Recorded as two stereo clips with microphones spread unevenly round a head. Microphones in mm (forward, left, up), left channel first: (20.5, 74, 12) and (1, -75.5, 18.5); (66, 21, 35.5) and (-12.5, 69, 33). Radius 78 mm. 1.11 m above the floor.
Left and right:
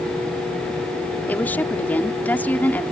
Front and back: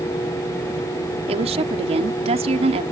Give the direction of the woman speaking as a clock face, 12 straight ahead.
7 o'clock.